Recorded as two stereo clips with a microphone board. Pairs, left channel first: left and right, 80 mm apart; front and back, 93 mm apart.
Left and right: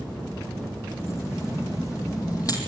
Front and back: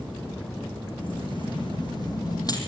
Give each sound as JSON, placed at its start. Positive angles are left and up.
{"t": 1.0, "sound": "keys jangling", "azimuth_deg": 30, "distance_m": 5.0}